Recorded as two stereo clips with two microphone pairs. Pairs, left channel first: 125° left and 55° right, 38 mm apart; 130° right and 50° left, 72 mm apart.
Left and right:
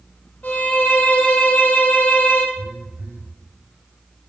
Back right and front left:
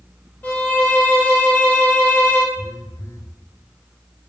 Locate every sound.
0.4 s a violin: 160° left, 1.3 m
2.5 s a phone buzzing: 85° right, 1.1 m